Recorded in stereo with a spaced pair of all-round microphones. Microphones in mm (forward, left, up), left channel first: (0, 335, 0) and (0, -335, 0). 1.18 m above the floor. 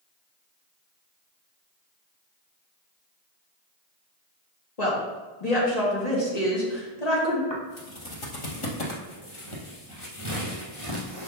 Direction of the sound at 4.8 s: 70° left (ahead or behind).